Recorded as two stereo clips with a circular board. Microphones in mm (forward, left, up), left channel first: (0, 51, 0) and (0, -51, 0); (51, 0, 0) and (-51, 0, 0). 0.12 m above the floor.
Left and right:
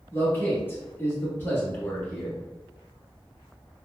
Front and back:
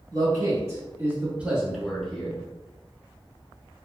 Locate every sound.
0.1 s a man speaking: 150° left, 1.6 m; by 2.4 s 50° left, 1.2 m